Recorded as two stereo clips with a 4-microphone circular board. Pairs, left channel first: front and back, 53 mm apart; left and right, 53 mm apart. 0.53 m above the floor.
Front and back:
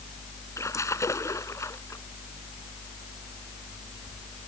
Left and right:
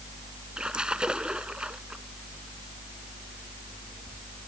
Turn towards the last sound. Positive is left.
turn(degrees=-20)